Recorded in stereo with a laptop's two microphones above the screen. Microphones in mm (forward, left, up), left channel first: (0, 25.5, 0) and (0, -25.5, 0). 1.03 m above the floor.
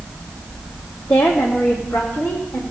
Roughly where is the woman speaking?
Left.